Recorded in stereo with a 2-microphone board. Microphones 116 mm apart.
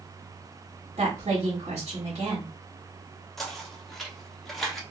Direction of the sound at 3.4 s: Centre (ahead or behind).